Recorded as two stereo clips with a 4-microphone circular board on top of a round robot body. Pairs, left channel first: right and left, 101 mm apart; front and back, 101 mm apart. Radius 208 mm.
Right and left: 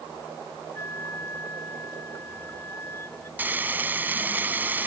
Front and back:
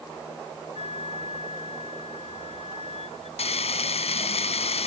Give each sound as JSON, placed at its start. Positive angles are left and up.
{"t": 0.8, "sound": "a flute", "azimuth_deg": -20}
{"t": 3.4, "sound": "frying", "azimuth_deg": 20}